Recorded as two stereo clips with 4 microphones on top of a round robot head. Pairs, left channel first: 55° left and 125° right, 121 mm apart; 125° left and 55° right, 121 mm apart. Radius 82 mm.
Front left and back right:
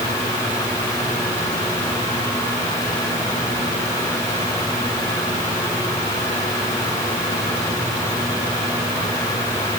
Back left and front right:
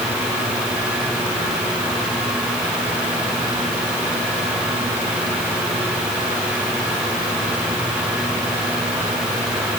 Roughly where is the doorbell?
No doorbell in this recording.